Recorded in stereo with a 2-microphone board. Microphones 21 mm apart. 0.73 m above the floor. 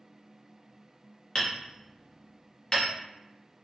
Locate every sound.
1.4 s hammering: 30° left (ahead or behind), 0.9 m